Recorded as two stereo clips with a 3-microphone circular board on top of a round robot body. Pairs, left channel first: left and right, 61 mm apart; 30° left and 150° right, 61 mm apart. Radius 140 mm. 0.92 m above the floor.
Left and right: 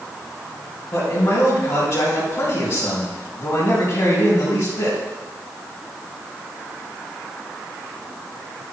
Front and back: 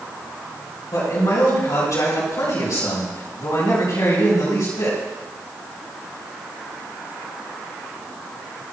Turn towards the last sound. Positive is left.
turn(degrees=40)